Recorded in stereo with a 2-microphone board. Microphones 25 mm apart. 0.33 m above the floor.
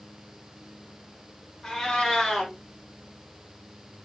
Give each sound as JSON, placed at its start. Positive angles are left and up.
{"t": 1.6, "sound": "a cat meowing", "side_deg": 25, "distance_m": 2.5}